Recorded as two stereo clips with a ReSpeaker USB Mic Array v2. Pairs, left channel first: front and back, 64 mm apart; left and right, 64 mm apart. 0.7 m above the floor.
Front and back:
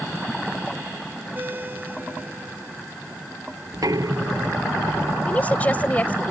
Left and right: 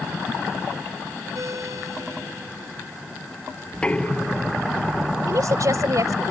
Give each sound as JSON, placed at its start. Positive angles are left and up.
{"t": 1.4, "sound": "a ringtone", "azimuth_deg": -120}
{"t": 3.7, "sound": "knocking", "azimuth_deg": 160}
{"t": 5.3, "sound": "a woman speaking", "azimuth_deg": -65}